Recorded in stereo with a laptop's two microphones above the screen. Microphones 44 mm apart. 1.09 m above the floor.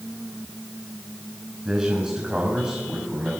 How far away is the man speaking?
About 7 m.